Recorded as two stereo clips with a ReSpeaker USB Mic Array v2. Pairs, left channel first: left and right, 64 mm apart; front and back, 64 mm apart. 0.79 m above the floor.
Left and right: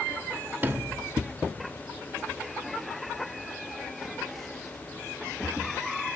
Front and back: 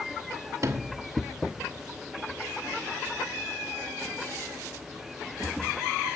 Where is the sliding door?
150° right, 1.2 m.